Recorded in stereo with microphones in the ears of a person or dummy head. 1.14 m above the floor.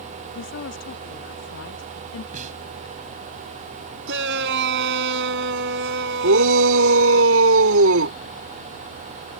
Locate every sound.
0.3 s a woman speaking: 65° left (ahead or behind)
2.3 s a snare drum: 45° right (ahead or behind)
4.1 s a shout: 70° right (ahead or behind)
6.2 s a shout: 80° right